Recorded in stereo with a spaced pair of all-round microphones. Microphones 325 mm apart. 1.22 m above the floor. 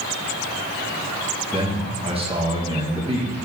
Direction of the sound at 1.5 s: 15° right (ahead or behind).